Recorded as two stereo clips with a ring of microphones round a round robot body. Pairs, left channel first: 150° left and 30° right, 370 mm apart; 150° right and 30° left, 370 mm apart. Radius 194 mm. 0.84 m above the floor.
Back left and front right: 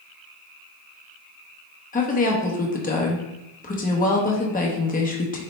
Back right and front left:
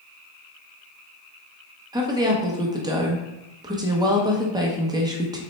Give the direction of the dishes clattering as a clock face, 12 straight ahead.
No dishes clattering in this recording.